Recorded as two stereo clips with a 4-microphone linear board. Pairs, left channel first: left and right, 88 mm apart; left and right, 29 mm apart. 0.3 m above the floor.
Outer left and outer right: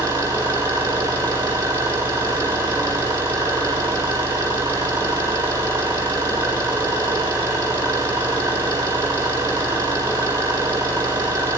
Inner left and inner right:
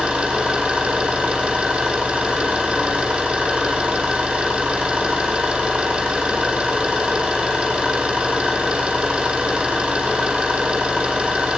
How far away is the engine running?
About 8.5 m.